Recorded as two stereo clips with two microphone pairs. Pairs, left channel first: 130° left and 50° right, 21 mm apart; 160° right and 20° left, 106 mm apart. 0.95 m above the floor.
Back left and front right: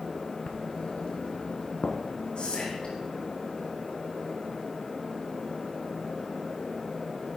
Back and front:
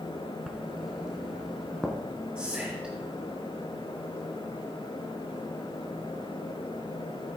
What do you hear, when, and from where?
0.5 s writing: 105° left, 1.7 m
2.4 s whispering: 90° left, 3.5 m